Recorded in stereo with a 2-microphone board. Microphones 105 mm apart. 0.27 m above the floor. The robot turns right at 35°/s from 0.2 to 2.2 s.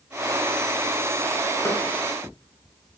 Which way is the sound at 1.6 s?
25° left (ahead or behind).